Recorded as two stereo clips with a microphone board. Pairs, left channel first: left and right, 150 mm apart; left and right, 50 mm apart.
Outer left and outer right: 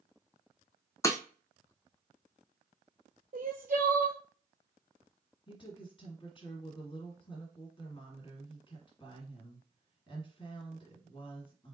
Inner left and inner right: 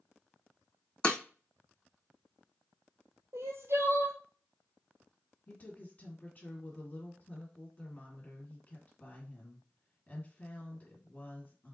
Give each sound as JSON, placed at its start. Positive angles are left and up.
{"t": 1.0, "sound": "breaking glass", "side_deg": 20, "distance_m": 0.7}
{"t": 3.3, "sound": "crying", "side_deg": -70, "distance_m": 0.9}
{"t": 5.5, "sound": "a woman speaking", "side_deg": 35, "distance_m": 1.7}